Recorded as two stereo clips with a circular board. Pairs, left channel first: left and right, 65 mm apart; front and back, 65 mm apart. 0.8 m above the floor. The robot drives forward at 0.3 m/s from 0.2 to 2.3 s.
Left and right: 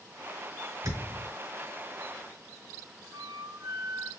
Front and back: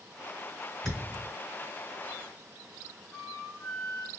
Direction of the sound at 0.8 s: 80° right.